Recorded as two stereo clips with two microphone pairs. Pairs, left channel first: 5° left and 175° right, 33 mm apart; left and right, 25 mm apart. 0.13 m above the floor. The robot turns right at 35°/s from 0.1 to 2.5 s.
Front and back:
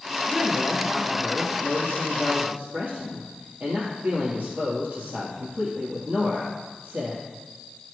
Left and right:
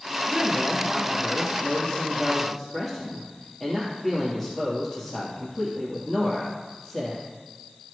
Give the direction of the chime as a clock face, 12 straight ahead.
I don't hear a chime.